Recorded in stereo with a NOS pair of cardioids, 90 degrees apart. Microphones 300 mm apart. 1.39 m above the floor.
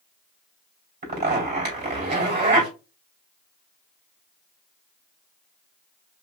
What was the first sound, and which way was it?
A zipper, 30° right.